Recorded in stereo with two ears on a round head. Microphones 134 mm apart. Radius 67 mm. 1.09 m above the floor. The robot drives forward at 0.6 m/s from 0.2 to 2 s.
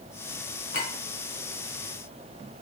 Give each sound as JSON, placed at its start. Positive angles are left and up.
{"t": 0.7, "sound": "a clink", "side_deg": 70, "distance_m": 2.0}